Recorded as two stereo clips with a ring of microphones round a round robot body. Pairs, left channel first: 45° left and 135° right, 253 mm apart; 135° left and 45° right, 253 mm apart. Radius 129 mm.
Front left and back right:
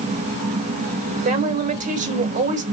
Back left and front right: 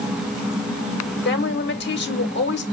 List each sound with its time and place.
1.2 s a woman speaking: 170° left, 1.1 m